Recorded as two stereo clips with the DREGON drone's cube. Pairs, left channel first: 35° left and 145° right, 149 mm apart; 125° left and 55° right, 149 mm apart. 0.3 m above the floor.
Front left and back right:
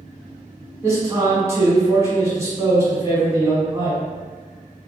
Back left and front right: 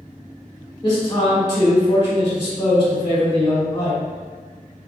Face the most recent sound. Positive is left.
turn(degrees=160)